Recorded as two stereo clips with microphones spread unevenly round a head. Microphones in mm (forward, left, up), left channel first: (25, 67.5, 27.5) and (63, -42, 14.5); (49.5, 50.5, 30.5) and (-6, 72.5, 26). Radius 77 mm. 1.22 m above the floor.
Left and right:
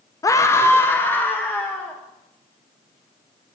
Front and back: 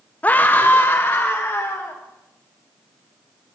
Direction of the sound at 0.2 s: 45° left.